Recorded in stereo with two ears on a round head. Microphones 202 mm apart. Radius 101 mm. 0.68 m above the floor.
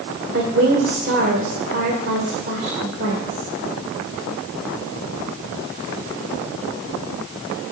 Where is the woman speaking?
50° right (ahead or behind), 1.9 m.